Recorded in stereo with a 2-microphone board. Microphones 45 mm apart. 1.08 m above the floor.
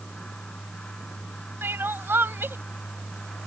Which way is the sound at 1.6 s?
60° right (ahead or behind).